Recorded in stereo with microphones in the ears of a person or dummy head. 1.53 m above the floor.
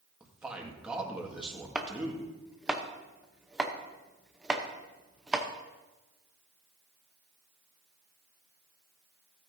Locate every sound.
0.2 s a man speaking: 5° right (ahead or behind), 1.8 m
1.8 s chopping: 5° right (ahead or behind), 0.8 m